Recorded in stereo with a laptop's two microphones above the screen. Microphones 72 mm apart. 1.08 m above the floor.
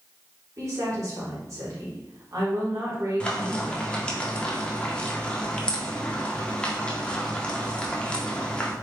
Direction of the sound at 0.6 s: 45° right (ahead or behind).